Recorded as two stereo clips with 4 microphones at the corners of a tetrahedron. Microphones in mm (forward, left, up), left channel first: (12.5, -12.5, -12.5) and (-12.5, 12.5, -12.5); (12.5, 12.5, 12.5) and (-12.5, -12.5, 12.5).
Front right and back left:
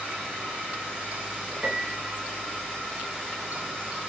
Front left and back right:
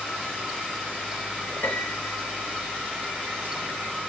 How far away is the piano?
About 1.2 m.